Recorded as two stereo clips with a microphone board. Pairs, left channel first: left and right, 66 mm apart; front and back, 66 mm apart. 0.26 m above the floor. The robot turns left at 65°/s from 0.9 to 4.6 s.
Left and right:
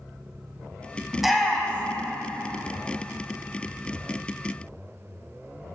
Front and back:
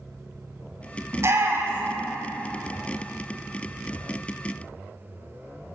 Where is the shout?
170° right, 1.2 m; by 2.0 s 130° left, 1.2 m.